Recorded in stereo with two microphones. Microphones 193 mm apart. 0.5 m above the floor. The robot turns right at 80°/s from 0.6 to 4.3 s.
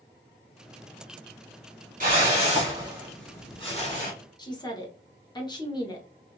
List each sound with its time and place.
2.0 s a whoosh: 90° right, 1.6 m; by 4.1 s 80° left, 1.6 m
4.4 s a woman speaking: 20° left (ahead or behind), 0.9 m